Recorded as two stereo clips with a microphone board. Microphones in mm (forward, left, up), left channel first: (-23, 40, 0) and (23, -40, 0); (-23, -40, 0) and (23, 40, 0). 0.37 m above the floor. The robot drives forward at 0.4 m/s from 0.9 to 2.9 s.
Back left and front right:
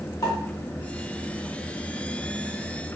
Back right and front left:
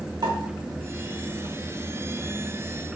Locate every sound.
0.2 s a pop: 85° left, 0.8 m